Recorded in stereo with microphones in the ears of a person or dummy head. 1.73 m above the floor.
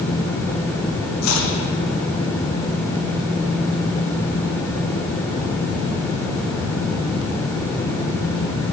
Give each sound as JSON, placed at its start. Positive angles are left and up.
{"t": 1.2, "sound": "chopping", "side_deg": 80, "distance_m": 0.9}